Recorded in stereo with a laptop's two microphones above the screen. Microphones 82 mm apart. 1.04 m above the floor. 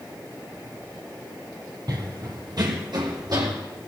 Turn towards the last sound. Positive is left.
turn(degrees=-60)  # may be behind; listen again after turning